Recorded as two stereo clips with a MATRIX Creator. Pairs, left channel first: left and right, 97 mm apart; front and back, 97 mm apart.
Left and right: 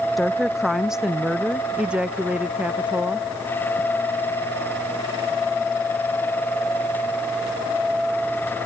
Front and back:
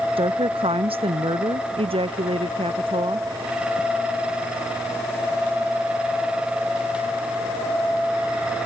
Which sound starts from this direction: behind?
A woman speaking, at 0.2 s.